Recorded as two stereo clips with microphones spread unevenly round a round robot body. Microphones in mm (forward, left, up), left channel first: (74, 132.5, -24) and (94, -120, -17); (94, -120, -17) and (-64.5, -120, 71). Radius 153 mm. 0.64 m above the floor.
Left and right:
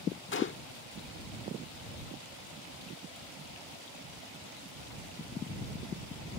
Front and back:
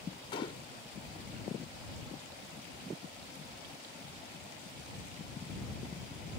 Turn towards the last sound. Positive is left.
turn(degrees=55)